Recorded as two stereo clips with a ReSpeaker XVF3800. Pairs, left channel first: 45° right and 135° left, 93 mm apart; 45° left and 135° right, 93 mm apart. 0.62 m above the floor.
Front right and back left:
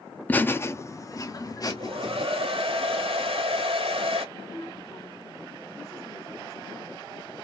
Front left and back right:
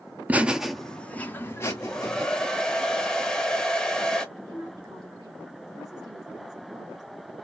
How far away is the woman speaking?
About 3 m.